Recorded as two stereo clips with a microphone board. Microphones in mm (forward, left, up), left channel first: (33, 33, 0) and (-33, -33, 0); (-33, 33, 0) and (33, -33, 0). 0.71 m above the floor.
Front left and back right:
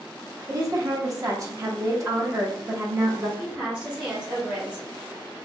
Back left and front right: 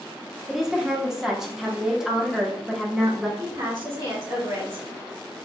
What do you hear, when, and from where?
0.5 s a woman speaking: 125° right, 0.9 m
3.4 s a woman speaking: 65° right, 1.9 m